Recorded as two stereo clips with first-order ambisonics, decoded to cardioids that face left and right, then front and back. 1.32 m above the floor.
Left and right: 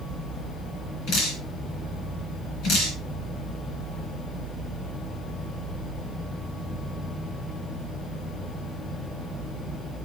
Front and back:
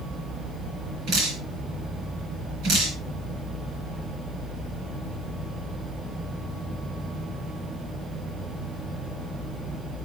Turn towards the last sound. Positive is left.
turn(degrees=135)